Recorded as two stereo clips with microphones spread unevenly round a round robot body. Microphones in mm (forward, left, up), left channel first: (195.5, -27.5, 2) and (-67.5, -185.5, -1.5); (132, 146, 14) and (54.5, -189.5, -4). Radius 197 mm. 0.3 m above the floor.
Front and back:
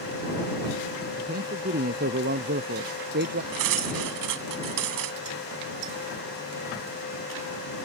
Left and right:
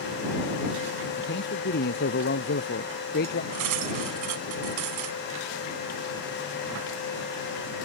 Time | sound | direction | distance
1.2 | a man speaking | 140° left | ?
3.5 | cutlery clinking | 145° right | ?